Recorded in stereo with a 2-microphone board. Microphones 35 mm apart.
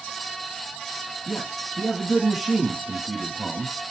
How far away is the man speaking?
About 7 m.